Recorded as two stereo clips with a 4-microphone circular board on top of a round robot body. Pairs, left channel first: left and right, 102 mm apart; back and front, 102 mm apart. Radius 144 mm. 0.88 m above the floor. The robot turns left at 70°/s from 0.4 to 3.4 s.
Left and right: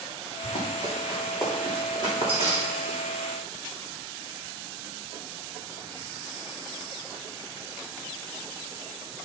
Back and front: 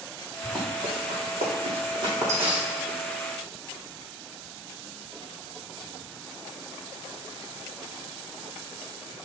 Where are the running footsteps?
60° left, 4 m; by 3.0 s 105° right, 3 m.